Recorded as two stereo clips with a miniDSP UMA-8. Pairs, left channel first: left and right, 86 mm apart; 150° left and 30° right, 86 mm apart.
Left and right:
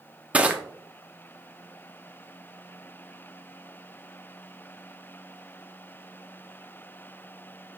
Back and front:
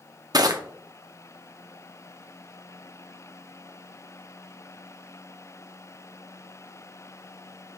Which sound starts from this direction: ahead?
Crushing, at 0.3 s.